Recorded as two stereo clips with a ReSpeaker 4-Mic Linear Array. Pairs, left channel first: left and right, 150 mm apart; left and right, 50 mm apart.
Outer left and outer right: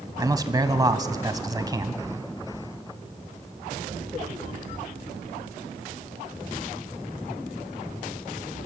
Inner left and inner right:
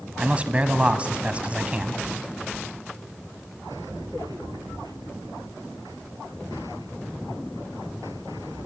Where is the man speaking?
25° right (ahead or behind), 1.2 m.